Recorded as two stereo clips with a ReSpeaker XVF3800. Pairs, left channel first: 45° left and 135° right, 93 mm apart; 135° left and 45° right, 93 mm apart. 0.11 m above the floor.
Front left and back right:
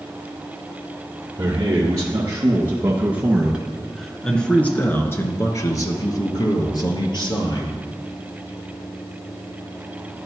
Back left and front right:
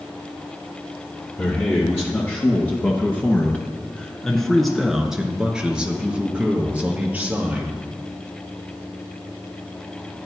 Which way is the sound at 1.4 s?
165° right.